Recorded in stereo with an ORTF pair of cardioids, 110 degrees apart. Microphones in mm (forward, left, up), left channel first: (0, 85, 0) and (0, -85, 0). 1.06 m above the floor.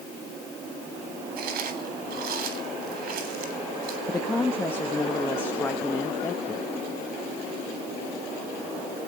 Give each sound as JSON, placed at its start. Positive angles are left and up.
{"t": 1.4, "sound": "chewing", "azimuth_deg": -65, "distance_m": 3.5}
{"t": 4.1, "sound": "a woman speaking", "azimuth_deg": 15, "distance_m": 1.1}